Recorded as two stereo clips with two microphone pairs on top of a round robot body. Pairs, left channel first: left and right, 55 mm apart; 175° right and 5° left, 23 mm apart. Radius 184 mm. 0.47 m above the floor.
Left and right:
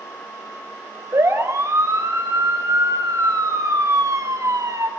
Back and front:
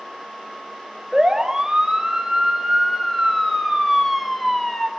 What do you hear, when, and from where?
1.1 s a siren: 60° right, 3.5 m; by 4.9 s 95° right, 3.5 m